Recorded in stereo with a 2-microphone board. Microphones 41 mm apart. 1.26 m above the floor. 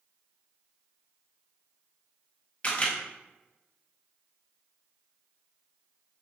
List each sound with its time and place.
2.6 s a camera shutter: 30° left (ahead or behind), 0.8 m